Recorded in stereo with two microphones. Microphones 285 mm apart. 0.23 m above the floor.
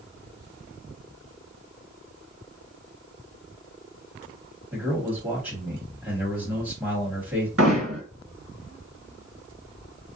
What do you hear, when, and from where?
4.7 s a man speaking: 5° right (ahead or behind), 1.4 m
7.6 s hammering: 50° right (ahead or behind), 1.7 m